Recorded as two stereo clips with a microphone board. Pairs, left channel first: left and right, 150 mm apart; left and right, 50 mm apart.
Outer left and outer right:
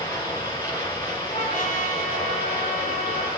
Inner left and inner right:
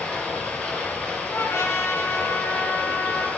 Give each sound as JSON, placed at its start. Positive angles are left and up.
{"t": 0.0, "sound": "running water", "side_deg": 20, "distance_m": 6.5}
{"t": 1.3, "sound": "a trumpet", "side_deg": 65, "distance_m": 2.0}